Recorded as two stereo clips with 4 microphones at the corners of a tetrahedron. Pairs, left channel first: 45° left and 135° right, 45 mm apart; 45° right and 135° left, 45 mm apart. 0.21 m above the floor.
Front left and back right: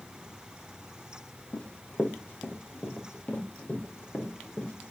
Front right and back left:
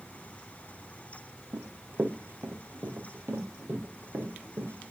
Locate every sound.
1.5 s running footsteps: 90° left, 1.7 m; by 4.9 s 105° left, 7 m